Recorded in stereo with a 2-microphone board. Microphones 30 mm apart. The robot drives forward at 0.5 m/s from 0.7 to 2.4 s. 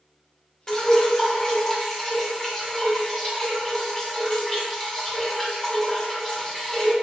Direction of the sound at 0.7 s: 15° left (ahead or behind).